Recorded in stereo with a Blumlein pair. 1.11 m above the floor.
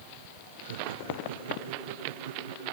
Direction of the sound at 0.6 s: 60° right.